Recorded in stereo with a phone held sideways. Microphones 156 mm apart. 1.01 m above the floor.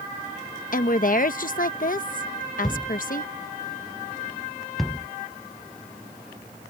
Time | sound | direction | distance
0.7 | a woman speaking | 55° left (ahead or behind) | ?
2.6 | a thud | centre (ahead or behind) | ?